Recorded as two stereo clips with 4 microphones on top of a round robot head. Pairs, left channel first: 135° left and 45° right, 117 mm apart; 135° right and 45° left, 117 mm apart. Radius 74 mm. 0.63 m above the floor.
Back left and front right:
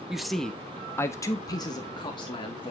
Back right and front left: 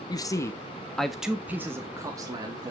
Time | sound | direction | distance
0.1 | a man speaking | 130° right | 1.3 m